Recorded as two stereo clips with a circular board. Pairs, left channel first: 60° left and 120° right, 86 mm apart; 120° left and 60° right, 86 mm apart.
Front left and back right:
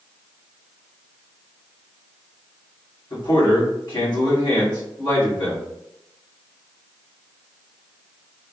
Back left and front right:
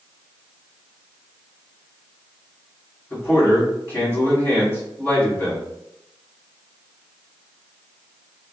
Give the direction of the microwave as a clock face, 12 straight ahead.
I don't hear a microwave.